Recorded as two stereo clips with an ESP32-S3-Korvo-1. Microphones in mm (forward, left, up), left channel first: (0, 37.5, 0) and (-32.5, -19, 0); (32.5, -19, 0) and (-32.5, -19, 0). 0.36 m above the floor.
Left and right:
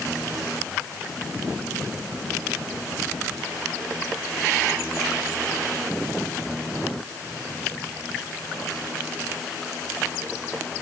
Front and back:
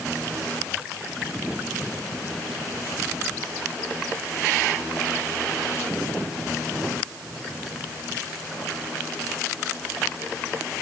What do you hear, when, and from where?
Only background noise.